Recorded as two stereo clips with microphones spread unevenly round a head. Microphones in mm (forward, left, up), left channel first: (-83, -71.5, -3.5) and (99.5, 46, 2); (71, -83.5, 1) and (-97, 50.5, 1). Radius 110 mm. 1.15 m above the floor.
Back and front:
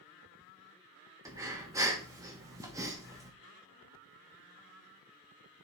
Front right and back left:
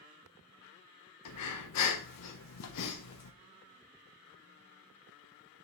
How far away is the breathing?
About 1.2 m.